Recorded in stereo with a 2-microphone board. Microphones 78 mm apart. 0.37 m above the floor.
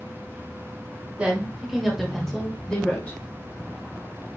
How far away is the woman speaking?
About 1.6 m.